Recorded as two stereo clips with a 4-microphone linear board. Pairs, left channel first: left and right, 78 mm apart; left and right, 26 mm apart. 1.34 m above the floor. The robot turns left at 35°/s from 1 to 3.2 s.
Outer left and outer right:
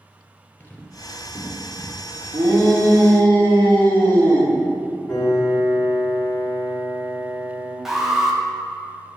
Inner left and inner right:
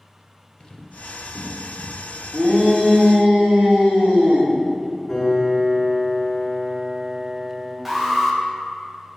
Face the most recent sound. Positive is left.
turn(degrees=-5)  # may be behind; listen again after turning